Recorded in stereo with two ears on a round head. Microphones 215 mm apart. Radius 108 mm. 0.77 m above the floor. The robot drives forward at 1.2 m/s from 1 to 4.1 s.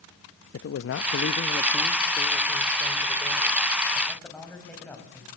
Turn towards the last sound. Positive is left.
turn(degrees=5)  # may be behind; listen again after turning